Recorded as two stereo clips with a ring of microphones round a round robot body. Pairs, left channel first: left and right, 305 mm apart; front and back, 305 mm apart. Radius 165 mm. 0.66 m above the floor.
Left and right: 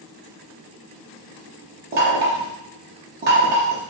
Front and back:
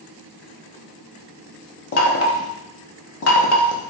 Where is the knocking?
35° right, 0.6 m.